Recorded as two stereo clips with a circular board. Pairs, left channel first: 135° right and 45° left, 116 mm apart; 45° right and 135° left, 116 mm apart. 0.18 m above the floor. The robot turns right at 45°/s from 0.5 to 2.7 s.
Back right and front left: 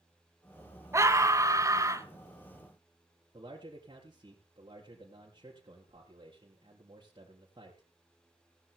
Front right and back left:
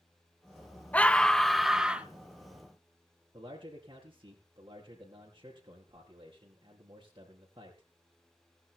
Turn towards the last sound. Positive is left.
turn(degrees=85)